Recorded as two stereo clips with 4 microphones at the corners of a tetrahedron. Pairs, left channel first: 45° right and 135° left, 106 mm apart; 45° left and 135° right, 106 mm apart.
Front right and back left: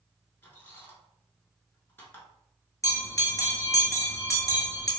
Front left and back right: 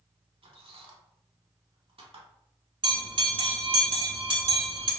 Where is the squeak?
110° right, 0.7 m.